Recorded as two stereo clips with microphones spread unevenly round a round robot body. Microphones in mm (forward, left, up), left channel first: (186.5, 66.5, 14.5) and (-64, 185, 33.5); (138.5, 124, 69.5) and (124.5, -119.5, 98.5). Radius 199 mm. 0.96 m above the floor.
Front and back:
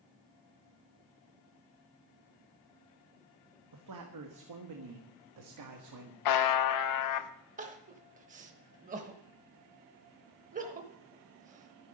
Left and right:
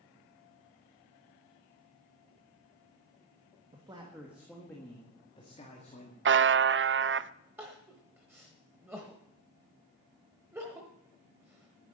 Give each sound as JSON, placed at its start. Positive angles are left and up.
{"t": 3.7, "sound": "a man speaking", "azimuth_deg": -170, "distance_m": 1.2}
{"t": 6.2, "sound": "a buzzer", "azimuth_deg": -45, "distance_m": 0.6}
{"t": 7.6, "sound": "crying", "azimuth_deg": -165, "distance_m": 0.8}